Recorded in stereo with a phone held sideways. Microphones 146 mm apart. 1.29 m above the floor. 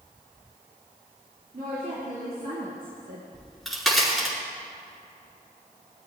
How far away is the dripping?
I don't hear dripping.